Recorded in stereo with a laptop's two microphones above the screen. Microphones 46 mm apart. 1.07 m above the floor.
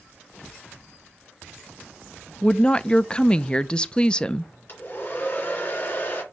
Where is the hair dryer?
45° left (ahead or behind), 3.5 m.